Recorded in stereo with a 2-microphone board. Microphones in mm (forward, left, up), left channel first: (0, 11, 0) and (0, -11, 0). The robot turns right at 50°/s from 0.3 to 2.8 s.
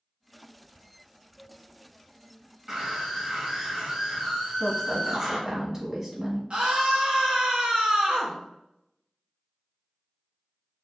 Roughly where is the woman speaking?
Right.